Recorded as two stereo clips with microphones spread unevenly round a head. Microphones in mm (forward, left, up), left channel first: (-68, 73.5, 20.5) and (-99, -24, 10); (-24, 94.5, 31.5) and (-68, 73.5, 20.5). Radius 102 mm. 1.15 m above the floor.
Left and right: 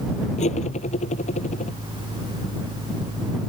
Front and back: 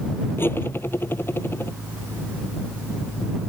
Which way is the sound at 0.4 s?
65° left.